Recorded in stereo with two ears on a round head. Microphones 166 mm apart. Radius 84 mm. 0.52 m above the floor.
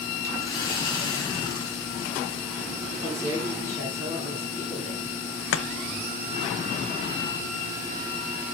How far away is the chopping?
About 1.0 m.